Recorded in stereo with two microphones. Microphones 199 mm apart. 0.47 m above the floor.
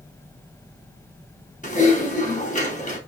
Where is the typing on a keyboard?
40° left (ahead or behind), 3.5 m.